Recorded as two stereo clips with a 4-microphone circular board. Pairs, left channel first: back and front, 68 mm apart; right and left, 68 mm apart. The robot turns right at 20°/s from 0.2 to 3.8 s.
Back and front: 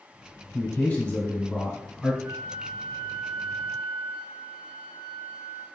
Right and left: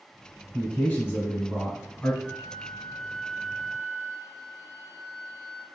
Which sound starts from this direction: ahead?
A flute, at 2.2 s.